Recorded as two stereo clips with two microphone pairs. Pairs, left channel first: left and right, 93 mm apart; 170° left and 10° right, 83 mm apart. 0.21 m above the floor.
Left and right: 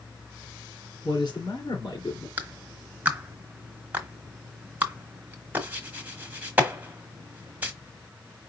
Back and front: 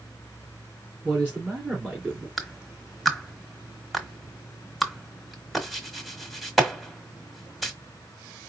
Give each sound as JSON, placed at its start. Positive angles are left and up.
{"t": 1.0, "sound": "a man speaking", "azimuth_deg": 60, "distance_m": 3.0}
{"t": 2.4, "sound": "a clap", "azimuth_deg": -95, "distance_m": 1.2}